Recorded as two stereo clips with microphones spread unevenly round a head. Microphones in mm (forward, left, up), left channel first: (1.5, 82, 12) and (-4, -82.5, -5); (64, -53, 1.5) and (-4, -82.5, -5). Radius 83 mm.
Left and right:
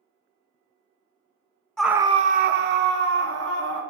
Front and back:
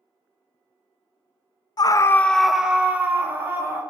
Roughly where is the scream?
Ahead.